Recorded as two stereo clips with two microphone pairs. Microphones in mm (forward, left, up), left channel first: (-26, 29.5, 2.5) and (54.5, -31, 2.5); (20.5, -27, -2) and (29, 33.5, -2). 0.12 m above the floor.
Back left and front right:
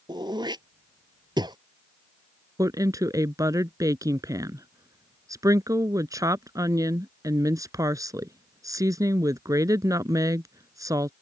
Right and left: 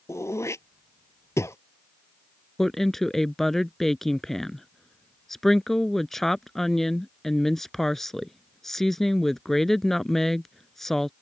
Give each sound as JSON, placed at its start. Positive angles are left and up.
{"t": 0.1, "sound": "throat clearing", "azimuth_deg": -70}
{"t": 2.6, "sound": "a woman speaking", "azimuth_deg": -15}